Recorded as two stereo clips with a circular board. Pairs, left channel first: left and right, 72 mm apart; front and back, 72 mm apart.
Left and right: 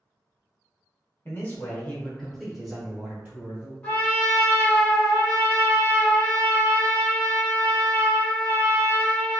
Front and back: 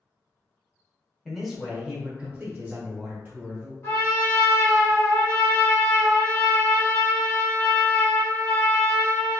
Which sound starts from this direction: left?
A man speaking, at 1.2 s.